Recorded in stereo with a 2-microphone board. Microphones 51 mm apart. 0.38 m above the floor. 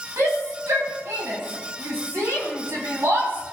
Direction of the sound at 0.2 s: 65° right (ahead or behind).